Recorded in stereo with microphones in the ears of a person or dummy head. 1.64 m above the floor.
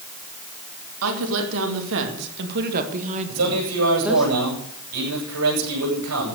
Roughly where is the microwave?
No microwave in this recording.